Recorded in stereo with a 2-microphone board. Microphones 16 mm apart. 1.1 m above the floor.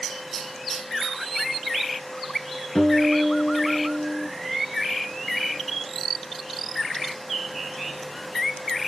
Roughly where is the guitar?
Left.